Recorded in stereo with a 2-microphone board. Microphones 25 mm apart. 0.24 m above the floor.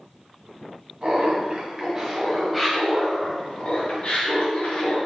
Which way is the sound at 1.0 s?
50° right (ahead or behind).